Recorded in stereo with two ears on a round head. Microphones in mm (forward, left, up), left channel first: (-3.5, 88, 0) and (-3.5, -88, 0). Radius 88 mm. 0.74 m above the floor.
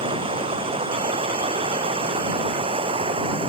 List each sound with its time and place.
0.0 s running water: 30° right (ahead or behind)